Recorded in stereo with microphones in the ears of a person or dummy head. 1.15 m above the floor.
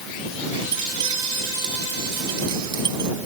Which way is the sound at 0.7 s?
25° right (ahead or behind).